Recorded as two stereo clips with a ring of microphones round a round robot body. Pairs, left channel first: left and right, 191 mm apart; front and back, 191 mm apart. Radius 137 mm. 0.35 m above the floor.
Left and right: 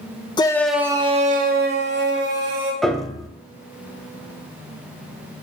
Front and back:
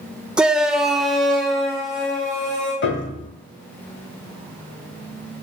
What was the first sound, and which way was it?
A shout, 100° left.